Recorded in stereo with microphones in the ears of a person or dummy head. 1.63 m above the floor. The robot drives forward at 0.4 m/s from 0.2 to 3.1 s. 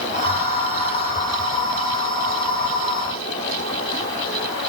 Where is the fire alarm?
I don't hear a fire alarm.